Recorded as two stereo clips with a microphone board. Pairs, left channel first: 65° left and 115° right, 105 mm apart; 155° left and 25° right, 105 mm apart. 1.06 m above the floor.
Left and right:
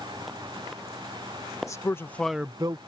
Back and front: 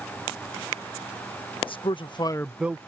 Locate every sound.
1.7 s a man speaking: 125° left; by 2.8 s 85° right